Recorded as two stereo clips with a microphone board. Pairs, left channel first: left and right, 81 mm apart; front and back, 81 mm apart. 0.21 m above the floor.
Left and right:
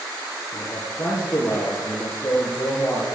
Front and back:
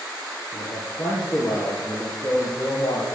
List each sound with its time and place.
0.5 s a man speaking: 30° left, 5 m; by 3.0 s 45° left, 4.5 m